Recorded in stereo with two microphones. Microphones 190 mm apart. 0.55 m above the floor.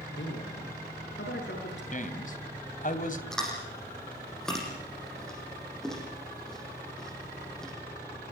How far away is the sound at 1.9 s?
About 2.5 m.